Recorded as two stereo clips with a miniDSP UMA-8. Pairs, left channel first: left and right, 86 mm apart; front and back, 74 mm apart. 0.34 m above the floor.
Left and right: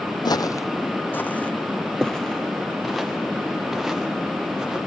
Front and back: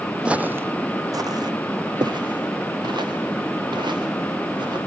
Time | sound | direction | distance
0.2 | footsteps | 105° left | 0.6 m